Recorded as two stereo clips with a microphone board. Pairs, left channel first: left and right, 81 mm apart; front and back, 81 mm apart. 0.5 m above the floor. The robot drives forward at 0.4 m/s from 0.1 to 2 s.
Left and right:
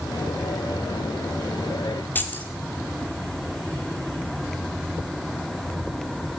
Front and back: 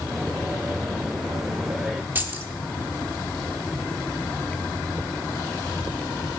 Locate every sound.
2.1 s keys jangling: 135° left, 0.7 m